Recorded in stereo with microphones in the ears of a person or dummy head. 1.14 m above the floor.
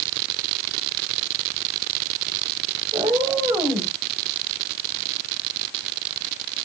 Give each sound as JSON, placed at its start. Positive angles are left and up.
{"t": 2.9, "sound": "a cat meowing", "side_deg": -20, "distance_m": 3.0}